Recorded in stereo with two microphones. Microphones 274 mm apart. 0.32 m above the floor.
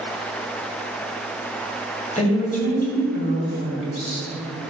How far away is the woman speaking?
About 1.9 m.